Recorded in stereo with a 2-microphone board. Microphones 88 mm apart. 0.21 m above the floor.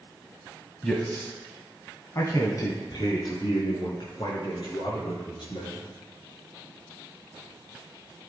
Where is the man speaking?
10° left (ahead or behind), 1.0 m; by 5.9 s 70° left (ahead or behind), 3 m.